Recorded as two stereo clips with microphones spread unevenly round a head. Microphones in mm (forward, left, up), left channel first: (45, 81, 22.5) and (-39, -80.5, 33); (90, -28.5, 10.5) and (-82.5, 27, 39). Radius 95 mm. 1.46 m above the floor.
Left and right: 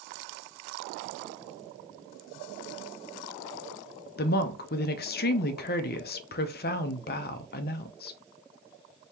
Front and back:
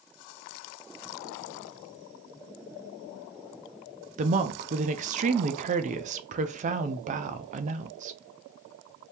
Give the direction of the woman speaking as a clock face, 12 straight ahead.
8 o'clock.